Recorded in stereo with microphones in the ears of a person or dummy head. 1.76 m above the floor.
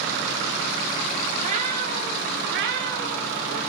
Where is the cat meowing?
35° right (ahead or behind), 2.5 m; by 3.6 s 50° right (ahead or behind), 3 m.